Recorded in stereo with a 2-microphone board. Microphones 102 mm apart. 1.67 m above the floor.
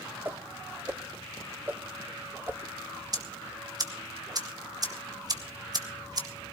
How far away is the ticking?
About 1.9 m.